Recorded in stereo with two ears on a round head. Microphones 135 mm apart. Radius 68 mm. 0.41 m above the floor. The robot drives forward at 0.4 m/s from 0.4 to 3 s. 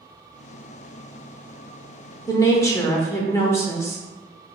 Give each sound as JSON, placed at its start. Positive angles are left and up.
{"t": 2.3, "sound": "a woman speaking", "side_deg": 20, "distance_m": 0.8}